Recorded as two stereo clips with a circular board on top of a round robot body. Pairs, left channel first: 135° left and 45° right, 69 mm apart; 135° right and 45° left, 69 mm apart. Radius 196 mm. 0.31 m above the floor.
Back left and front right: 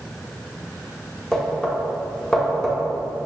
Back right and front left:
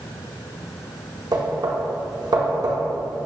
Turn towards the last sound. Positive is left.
turn(degrees=55)